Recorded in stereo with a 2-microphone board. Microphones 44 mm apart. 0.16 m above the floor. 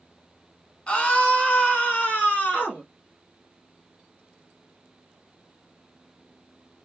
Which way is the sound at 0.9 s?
25° left (ahead or behind).